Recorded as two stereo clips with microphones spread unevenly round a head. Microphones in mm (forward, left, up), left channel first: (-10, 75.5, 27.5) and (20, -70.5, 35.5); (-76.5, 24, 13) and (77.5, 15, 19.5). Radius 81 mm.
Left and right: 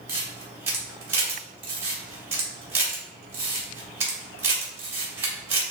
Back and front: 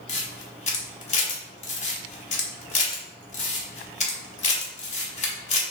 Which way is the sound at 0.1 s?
145° right.